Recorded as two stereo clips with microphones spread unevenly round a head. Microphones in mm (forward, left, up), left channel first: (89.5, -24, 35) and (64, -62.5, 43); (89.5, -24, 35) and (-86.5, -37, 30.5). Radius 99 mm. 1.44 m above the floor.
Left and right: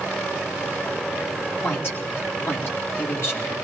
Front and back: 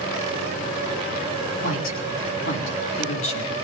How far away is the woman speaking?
About 4.5 m.